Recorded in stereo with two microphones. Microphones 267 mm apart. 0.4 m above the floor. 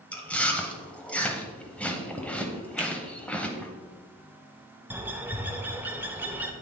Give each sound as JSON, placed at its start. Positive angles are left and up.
{"t": 0.1, "sound": "chewing", "side_deg": 5, "distance_m": 0.8}
{"t": 2.8, "sound": "a finger snap", "side_deg": 25, "distance_m": 1.2}
{"t": 4.9, "sound": "a bird", "side_deg": -5, "distance_m": 0.7}